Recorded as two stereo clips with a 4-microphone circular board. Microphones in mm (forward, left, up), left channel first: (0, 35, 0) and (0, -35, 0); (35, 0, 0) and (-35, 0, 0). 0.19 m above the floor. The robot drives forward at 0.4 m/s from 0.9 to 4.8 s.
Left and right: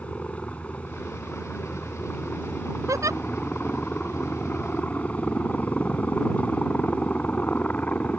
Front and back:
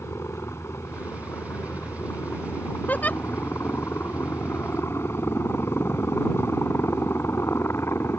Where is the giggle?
60° right; by 3.2 s 65° right.